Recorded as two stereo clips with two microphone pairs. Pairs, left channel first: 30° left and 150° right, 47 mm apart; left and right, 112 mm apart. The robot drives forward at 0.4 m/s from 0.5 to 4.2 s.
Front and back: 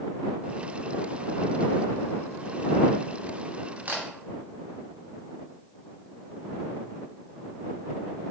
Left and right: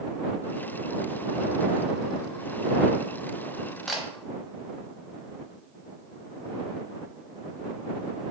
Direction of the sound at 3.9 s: 175° right.